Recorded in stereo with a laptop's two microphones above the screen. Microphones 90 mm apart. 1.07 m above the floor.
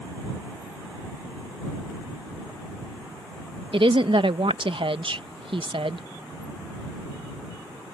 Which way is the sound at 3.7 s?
70° right (ahead or behind).